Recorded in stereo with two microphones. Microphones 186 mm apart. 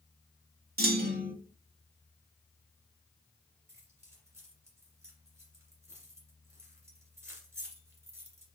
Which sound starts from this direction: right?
A clunk, at 0.8 s.